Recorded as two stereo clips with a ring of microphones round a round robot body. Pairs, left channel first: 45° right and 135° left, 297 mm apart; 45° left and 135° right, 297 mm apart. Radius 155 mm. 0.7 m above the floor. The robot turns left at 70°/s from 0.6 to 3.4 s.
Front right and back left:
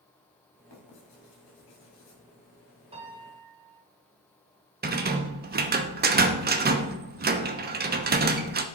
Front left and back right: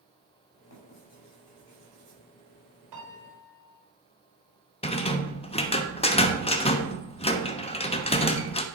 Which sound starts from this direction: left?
A rattle, at 4.8 s.